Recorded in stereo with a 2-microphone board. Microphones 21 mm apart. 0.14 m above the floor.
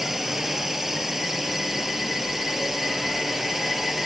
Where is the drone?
15° right (ahead or behind).